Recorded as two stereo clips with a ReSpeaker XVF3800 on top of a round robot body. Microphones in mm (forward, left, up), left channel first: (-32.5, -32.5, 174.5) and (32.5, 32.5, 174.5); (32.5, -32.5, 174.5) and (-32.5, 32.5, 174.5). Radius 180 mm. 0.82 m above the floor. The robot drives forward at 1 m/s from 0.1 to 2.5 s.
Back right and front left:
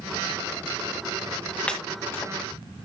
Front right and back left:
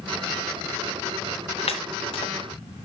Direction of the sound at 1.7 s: 55° right.